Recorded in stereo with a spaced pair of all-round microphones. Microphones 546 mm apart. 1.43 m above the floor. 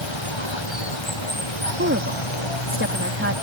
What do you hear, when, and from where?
0.0 s running water: 55° left (ahead or behind)
1.8 s a woman speaking: 20° right (ahead or behind)